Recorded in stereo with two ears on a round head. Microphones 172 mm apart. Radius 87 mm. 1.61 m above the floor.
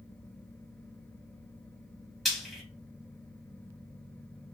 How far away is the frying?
About 1.2 m.